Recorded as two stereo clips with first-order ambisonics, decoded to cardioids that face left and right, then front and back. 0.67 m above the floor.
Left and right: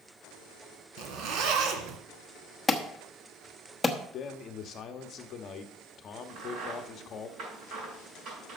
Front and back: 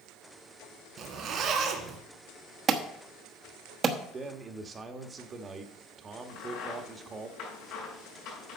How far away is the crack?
About 6 m.